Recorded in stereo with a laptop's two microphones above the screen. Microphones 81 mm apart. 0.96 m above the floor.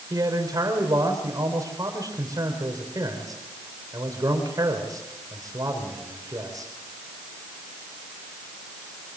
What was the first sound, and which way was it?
A man speaking, 50° right (ahead or behind).